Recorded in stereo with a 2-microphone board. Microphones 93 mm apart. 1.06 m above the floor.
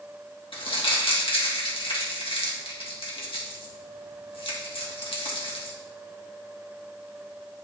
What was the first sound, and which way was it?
Crumpling, 70° left (ahead or behind).